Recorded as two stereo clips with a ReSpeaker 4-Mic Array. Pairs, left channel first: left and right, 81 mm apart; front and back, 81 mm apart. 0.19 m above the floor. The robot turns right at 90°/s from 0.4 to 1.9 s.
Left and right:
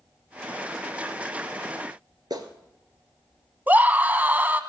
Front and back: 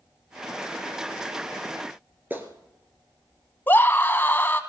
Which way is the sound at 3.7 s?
40° right.